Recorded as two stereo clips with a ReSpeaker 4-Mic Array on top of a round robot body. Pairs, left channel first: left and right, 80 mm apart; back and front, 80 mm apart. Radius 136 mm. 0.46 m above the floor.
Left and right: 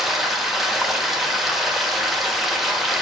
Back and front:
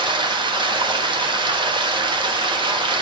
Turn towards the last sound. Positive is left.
turn(degrees=0)